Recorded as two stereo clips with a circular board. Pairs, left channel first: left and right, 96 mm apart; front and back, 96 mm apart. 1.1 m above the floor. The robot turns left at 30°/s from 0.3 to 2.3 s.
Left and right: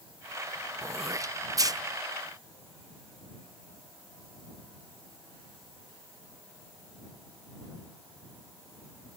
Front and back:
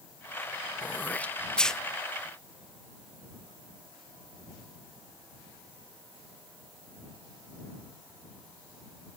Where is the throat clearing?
50° right; by 1.8 s 80° right.